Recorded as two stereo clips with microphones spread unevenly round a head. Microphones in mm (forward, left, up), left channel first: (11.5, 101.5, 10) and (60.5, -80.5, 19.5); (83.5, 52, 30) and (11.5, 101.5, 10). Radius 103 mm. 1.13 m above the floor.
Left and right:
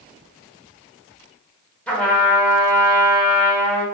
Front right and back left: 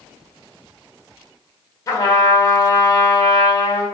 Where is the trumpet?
20° left, 1.5 m.